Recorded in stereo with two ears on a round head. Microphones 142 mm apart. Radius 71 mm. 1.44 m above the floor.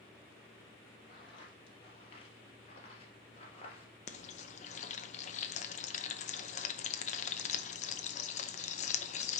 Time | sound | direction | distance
1.1 | footsteps | 30° left (ahead or behind) | 2.5 m
4.1 | frying | 45° left (ahead or behind) | 0.7 m